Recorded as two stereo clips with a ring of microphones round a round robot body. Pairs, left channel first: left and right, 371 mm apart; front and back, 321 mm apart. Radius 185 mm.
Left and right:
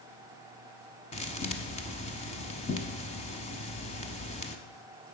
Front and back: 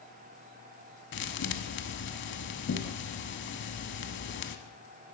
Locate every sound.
1.1 s a thud: 25° left, 0.8 m